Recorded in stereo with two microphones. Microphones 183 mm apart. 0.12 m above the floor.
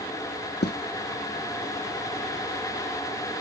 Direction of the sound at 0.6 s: 65° left (ahead or behind).